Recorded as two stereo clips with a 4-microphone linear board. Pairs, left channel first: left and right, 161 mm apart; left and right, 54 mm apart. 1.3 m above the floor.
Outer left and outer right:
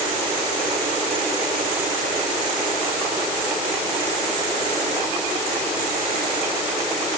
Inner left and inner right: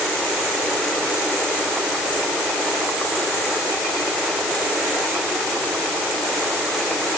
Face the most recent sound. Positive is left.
No sound to turn to.